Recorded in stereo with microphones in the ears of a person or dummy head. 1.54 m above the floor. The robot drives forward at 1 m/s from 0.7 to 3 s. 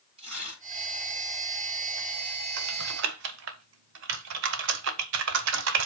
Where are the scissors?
I don't hear scissors.